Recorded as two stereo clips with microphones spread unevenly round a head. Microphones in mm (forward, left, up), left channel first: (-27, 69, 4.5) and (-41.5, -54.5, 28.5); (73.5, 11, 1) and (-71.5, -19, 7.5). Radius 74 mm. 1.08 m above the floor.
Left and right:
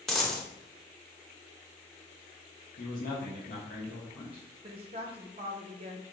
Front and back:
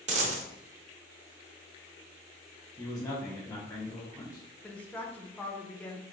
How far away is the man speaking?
About 1.1 m.